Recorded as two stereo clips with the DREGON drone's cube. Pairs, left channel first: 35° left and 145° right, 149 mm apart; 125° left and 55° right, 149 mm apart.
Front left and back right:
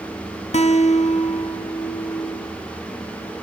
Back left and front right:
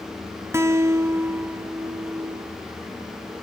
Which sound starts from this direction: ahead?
A guitar, at 0.5 s.